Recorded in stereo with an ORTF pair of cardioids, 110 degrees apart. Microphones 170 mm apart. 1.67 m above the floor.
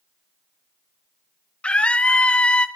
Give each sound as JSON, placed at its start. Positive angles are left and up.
{"t": 1.6, "sound": "a scream", "azimuth_deg": 5, "distance_m": 0.9}